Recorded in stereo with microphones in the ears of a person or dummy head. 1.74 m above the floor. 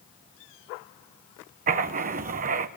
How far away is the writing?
About 1.1 m.